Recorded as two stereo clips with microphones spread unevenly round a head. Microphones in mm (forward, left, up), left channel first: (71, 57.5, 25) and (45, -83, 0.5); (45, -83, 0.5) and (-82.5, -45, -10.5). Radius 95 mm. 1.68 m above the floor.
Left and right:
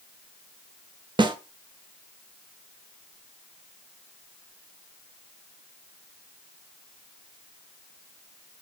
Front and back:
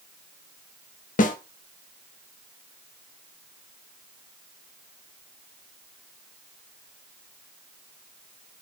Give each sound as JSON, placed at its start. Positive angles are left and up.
{"t": 1.2, "sound": "a snare drum", "azimuth_deg": -40, "distance_m": 0.5}